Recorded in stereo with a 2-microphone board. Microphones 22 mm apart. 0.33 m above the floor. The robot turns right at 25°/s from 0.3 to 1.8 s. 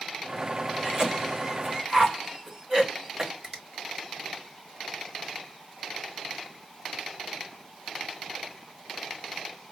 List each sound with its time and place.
0.8 s a cough: 25° right (ahead or behind), 1.6 m
3.4 s a finger snap: 10° right (ahead or behind), 1.5 m